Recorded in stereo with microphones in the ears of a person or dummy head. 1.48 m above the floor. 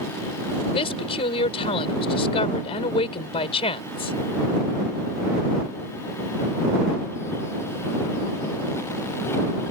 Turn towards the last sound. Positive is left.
turn(degrees=30)  # may be behind; listen again after turning